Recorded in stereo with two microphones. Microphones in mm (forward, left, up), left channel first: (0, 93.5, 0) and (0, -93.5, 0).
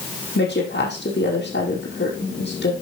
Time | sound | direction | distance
0.3 | a woman speaking | 70° left (ahead or behind) | 5 m